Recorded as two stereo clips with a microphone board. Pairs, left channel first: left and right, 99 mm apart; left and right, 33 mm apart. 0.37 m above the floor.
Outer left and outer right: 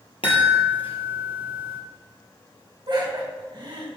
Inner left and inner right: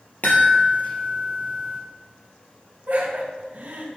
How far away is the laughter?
About 2 m.